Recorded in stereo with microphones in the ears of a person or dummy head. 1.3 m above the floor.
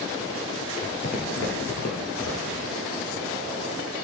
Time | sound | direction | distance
0.8 | footsteps | 40° left (ahead or behind) | 2.0 m